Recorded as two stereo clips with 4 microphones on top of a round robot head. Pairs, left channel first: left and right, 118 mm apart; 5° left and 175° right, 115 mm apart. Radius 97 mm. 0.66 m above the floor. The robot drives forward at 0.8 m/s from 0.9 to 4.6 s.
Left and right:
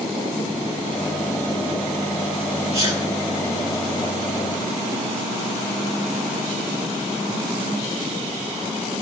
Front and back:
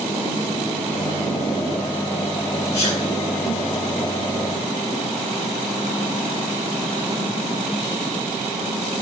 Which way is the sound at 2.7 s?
50° right.